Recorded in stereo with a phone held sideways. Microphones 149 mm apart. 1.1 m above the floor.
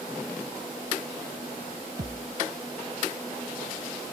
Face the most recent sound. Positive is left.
turn(degrees=-80)